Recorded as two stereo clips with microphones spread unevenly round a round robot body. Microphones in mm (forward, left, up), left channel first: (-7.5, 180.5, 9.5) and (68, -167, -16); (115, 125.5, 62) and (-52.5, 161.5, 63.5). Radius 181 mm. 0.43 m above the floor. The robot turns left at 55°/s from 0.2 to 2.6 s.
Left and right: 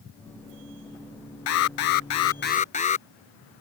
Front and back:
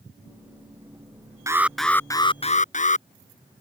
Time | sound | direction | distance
1.5 | an alarm | 95° left | ?